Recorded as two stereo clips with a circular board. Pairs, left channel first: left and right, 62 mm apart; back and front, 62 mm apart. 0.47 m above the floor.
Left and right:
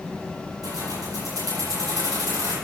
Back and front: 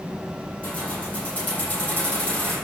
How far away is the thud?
No thud in this recording.